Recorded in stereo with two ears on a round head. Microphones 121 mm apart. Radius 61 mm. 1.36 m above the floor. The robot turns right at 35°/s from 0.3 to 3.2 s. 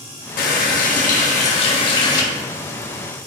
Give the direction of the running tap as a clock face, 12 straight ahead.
9 o'clock.